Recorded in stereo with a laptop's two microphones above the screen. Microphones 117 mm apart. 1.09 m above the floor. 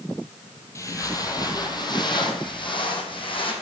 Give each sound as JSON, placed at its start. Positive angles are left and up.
{"t": 0.8, "sound": "footsteps", "side_deg": 25, "distance_m": 1.7}